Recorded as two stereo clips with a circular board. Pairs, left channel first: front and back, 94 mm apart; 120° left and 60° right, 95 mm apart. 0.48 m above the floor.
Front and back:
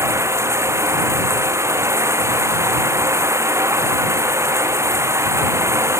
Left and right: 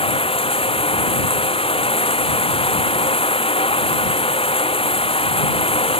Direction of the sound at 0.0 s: 120° left.